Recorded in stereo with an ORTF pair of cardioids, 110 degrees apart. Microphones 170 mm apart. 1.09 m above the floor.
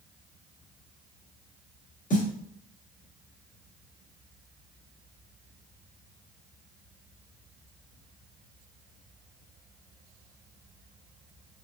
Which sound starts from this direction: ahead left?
A snare drum, at 2.1 s.